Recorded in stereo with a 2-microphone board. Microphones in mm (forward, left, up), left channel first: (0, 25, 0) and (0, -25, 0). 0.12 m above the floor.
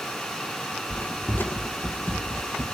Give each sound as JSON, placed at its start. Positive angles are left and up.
{"t": 0.9, "sound": "footsteps", "side_deg": 35, "distance_m": 1.3}